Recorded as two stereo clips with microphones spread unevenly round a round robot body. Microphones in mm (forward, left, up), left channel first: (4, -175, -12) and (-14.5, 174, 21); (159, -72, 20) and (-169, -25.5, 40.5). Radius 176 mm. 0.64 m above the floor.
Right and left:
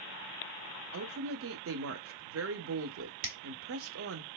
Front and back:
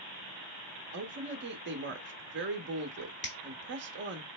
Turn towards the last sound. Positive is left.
turn(degrees=50)